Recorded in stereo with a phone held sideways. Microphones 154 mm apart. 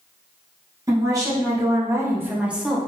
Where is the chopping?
No chopping in this recording.